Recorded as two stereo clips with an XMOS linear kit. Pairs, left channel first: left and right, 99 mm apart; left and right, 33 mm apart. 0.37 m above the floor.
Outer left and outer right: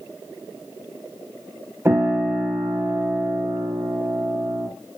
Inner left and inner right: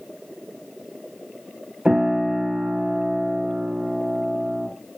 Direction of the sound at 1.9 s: 25° right (ahead or behind).